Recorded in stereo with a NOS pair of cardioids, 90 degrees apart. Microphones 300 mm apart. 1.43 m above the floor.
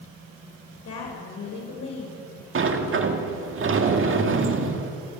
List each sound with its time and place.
0.8 s a woman speaking: 55° left, 5.5 m
2.5 s a sliding door: 45° right, 2 m